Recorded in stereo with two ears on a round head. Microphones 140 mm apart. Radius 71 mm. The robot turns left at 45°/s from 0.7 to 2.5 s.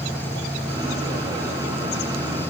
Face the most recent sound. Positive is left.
No sound to turn to.